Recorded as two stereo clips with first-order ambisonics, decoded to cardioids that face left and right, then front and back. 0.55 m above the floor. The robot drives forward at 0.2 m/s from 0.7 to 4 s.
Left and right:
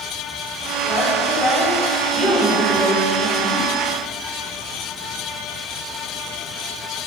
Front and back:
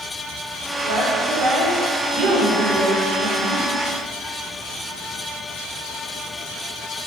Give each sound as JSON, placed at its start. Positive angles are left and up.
{"t": 0.8, "sound": "a woman speaking", "azimuth_deg": 170, "distance_m": 1.5}